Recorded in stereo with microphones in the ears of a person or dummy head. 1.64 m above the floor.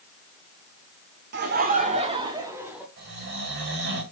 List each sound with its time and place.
1.3 s laughter: 50° right (ahead or behind), 1.2 m; by 2.9 s 5° right (ahead or behind), 1.5 m
3.0 s snoring: 40° right (ahead or behind), 1.9 m